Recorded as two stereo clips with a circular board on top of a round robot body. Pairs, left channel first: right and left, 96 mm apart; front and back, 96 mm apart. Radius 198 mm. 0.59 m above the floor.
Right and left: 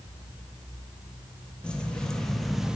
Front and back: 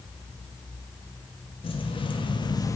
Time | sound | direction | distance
1.6 | keys jangling | 10° right | 1.0 m